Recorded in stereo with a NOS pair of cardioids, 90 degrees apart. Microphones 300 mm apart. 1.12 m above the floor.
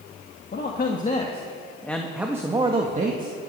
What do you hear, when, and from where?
0.5 s a man speaking: 35° left, 1.7 m; by 3.4 s 35° right, 1.6 m